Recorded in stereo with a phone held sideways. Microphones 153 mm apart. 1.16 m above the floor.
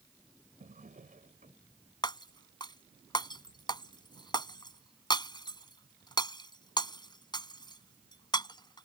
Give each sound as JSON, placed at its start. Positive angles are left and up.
{"t": 0.6, "sound": "a drawer", "side_deg": -60}
{"t": 2.0, "sound": "breaking glass", "side_deg": 30}